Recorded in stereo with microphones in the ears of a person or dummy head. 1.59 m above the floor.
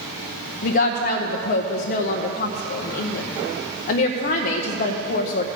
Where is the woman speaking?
50° left (ahead or behind), 0.7 m.